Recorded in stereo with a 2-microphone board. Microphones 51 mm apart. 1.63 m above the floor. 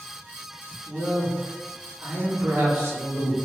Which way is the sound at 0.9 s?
50° right (ahead or behind).